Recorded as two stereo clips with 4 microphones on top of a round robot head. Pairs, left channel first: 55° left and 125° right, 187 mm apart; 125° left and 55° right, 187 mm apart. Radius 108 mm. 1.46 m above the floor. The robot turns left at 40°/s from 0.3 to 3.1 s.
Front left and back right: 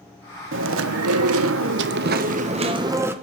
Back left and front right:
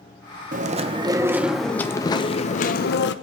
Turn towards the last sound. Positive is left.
turn(degrees=155)